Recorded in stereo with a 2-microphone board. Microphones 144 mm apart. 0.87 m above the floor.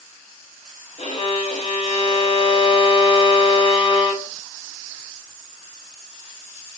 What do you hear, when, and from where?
1.0 s a violin: 45° left (ahead or behind), 0.9 m